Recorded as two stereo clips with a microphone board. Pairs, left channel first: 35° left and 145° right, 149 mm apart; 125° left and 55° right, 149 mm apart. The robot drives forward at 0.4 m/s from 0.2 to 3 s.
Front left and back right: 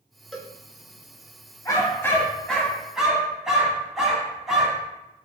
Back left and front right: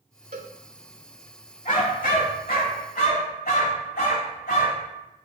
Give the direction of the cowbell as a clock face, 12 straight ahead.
2 o'clock.